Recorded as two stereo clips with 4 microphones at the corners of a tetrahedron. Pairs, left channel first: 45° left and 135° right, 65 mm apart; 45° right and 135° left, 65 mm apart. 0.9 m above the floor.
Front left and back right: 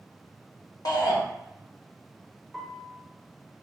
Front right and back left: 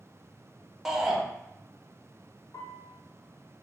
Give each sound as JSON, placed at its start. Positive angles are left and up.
{"t": 0.8, "sound": "a shout", "azimuth_deg": 50, "distance_m": 0.8}
{"t": 2.5, "sound": "a piano", "azimuth_deg": -45, "distance_m": 0.6}